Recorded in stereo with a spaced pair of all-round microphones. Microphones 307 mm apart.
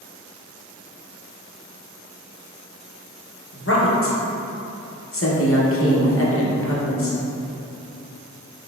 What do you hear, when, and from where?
3.5 s a woman speaking: 45° left (ahead or behind), 0.7 m